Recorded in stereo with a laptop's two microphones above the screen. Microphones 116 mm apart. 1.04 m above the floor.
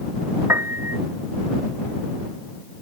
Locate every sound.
0.5 s a piano: 20° right (ahead or behind)